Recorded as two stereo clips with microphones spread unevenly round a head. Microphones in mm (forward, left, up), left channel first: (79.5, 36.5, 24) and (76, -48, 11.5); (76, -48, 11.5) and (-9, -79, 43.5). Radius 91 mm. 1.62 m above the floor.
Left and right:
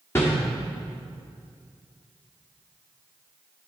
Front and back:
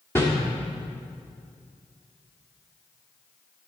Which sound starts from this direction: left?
A whoosh, at 0.1 s.